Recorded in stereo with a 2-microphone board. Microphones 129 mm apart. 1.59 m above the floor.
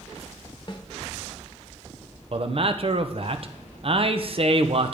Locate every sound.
0.7 s a snare drum: 35° left (ahead or behind), 1.0 m
2.3 s a man speaking: 45° right (ahead or behind), 0.8 m